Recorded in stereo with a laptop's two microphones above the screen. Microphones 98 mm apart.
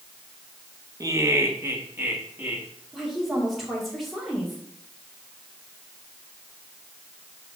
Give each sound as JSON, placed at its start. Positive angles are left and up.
{"t": 1.0, "sound": "laughter", "side_deg": -35, "distance_m": 1.2}
{"t": 2.9, "sound": "a woman speaking", "side_deg": 0, "distance_m": 2.0}